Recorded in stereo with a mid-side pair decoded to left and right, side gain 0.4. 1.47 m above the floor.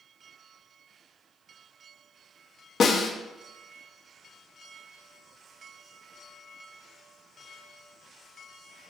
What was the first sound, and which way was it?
A snare drum, 60° left.